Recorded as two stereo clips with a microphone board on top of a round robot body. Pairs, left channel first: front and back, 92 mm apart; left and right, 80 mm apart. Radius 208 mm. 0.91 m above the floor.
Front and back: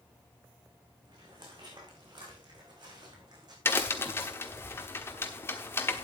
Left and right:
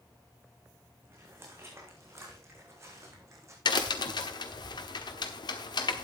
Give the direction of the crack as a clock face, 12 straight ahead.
10 o'clock.